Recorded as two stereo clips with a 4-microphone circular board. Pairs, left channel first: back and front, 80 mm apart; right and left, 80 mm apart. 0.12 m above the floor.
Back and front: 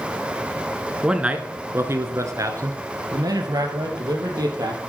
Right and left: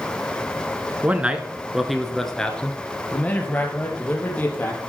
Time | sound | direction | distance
1.0 | a man speaking | 65° left | 1.3 m